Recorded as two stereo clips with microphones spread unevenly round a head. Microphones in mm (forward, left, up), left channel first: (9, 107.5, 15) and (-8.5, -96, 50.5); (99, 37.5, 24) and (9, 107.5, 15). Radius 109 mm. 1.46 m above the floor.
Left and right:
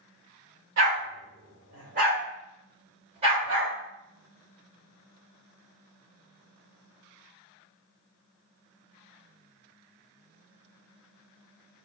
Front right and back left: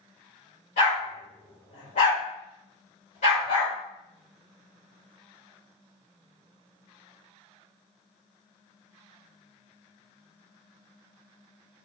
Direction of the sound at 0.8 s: 70° right.